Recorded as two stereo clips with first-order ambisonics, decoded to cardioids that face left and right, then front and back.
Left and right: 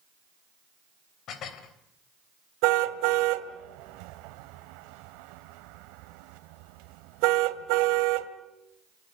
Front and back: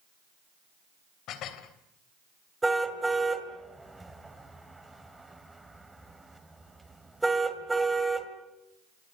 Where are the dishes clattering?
40° left, 3 m.